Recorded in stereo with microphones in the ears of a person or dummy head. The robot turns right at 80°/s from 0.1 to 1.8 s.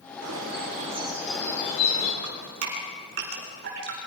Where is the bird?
85° right, 5 m; by 2.1 s 45° left, 5 m.